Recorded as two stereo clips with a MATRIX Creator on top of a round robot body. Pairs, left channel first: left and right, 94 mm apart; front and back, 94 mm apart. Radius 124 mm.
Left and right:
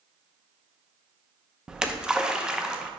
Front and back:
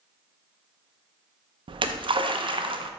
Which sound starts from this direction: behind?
A splash, at 1.7 s.